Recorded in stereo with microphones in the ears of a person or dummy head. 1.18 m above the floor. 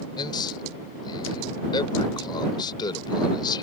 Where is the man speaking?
25° left (ahead or behind).